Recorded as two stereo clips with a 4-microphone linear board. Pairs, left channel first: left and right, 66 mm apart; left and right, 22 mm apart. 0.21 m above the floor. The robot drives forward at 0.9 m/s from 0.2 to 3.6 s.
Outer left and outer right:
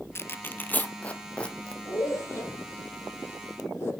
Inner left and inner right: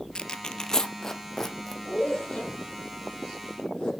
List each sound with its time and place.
0.1 s tearing paper: 35° left (ahead or behind), 0.9 m; by 1.8 s 15° left (ahead or behind), 2 m
1.9 s a zipper: 40° left (ahead or behind), 7 m; by 3.9 s 35° left (ahead or behind), 8.5 m